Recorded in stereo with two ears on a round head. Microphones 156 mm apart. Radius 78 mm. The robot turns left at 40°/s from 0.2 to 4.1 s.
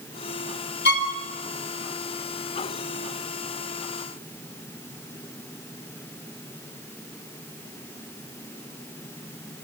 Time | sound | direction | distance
0.8 | a violin | 70° left (ahead or behind) | 3.5 m